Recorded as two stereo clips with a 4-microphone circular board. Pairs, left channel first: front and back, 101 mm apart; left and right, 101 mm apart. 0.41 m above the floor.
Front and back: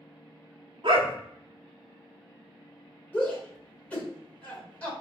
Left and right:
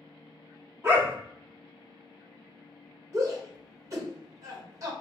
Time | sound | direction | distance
0.8 | a dog barking | 150° right | 0.8 m
3.1 | a shout | 70° right | 1.8 m